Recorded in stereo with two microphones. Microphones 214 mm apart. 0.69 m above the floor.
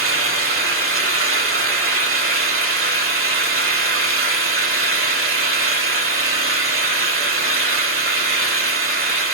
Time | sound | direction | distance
0.0 | an engine running | 80° right | 1.2 m